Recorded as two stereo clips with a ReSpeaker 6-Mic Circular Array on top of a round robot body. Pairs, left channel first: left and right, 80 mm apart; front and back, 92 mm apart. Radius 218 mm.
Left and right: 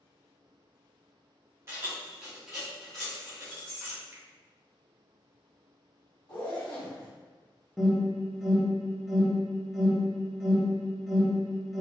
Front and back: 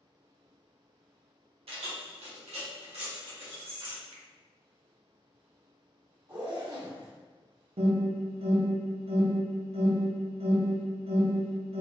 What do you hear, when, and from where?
1.7 s keys jangling: 155° right, 0.6 m; by 4.0 s 165° left, 1.7 m
4.1 s a finger snap: 150° right, 0.6 m
6.3 s a zipper: 130° left, 1.1 m
7.8 s an alarm: straight behind, 0.7 m